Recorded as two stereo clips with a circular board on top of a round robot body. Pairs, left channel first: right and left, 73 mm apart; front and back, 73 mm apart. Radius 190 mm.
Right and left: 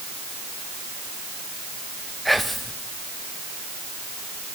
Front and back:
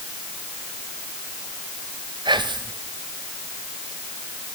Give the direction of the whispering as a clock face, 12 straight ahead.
6 o'clock.